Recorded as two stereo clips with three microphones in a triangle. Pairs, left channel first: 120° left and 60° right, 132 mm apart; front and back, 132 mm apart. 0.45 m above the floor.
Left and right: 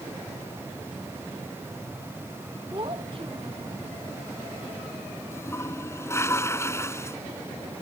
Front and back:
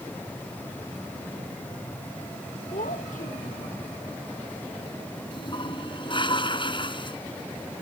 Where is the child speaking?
10° right.